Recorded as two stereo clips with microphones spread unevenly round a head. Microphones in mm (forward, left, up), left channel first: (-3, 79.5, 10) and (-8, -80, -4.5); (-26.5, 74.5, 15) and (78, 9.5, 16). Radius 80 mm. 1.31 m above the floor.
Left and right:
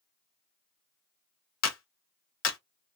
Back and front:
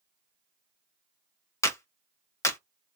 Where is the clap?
80° left, 1.2 m.